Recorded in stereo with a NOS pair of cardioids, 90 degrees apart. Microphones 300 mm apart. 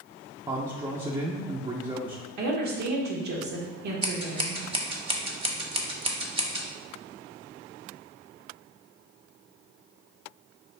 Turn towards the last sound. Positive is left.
turn(degrees=-20)